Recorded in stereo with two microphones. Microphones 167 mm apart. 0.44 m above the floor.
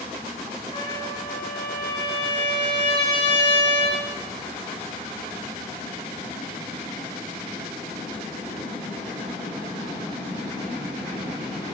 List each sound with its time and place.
0.7 s a trumpet: 30° left (ahead or behind), 5.5 m